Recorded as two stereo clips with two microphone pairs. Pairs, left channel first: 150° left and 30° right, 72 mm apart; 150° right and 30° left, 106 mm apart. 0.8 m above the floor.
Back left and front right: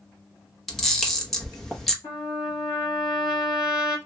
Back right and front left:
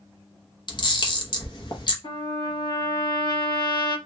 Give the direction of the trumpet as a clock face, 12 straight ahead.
6 o'clock.